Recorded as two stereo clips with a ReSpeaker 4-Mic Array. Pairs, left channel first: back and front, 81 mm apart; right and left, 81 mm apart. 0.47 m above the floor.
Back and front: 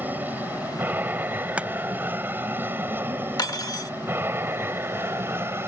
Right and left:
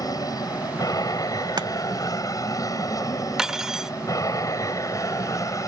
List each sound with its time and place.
0.0 s an aircraft: 65° right; by 5.7 s 55° right
1.6 s chopping: 75° left
3.4 s cutlery clinking: 170° left